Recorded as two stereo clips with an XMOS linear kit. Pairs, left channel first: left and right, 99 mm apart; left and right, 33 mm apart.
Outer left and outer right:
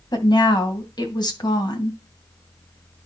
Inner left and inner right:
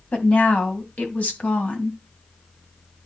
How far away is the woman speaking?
About 2 m.